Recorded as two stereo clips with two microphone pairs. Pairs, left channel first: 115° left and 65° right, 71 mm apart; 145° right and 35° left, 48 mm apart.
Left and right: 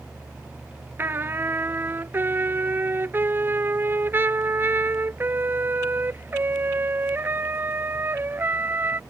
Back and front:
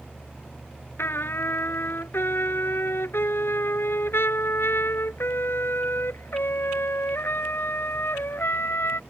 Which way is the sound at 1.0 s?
125° right.